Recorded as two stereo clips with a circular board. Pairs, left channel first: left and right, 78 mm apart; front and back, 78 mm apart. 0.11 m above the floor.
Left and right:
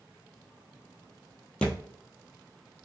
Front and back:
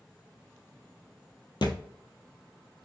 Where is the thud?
15° left, 1.0 m.